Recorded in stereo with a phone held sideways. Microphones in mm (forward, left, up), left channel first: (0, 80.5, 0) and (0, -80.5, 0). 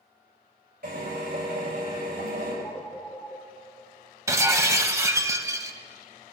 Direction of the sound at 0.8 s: 85° right.